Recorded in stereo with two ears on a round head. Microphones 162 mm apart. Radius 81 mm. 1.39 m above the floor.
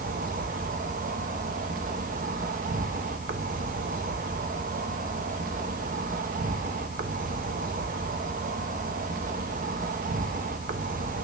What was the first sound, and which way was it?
An insect, 45° right (ahead or behind).